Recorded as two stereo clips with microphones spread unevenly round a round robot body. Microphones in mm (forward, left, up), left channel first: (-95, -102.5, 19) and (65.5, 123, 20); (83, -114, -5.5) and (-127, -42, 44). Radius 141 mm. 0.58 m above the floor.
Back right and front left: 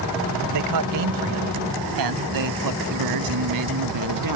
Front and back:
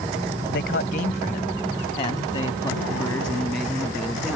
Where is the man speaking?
30° left; by 4.4 s 70° left.